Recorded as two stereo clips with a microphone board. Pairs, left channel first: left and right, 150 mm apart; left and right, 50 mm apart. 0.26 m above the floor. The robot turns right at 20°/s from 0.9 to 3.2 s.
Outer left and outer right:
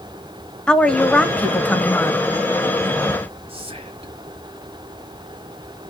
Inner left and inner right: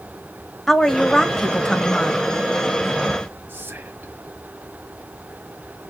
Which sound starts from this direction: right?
Whispering, at 3.5 s.